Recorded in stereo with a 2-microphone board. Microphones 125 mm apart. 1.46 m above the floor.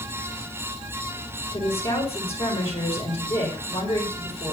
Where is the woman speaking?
50° left (ahead or behind), 4.5 m.